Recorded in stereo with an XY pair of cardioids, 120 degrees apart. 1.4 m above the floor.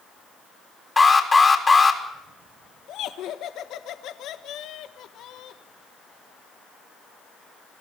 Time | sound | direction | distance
1.0 | an alarm | 25° left | 3.5 m
2.9 | laughter | 70° left | 1.4 m